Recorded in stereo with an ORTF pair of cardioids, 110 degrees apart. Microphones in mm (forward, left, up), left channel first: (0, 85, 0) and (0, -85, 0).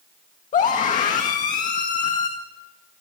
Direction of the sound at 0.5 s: 50° left.